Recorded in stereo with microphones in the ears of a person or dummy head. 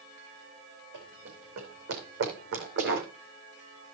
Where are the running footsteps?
60° right (ahead or behind), 5 m; by 3.1 s 65° right (ahead or behind), 4 m.